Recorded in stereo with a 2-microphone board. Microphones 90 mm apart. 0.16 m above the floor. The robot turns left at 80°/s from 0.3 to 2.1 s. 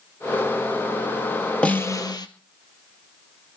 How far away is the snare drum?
About 1.8 m.